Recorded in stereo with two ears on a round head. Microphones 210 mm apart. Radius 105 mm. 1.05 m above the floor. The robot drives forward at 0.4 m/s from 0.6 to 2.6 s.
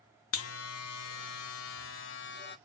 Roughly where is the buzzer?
Left.